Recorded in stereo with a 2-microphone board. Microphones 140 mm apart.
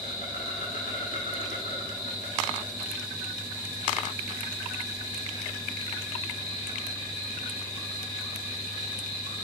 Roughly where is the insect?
Left.